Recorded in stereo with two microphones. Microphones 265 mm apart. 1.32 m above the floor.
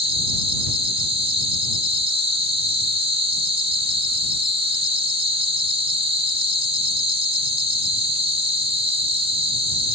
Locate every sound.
0.0 s an insect: 20° right (ahead or behind)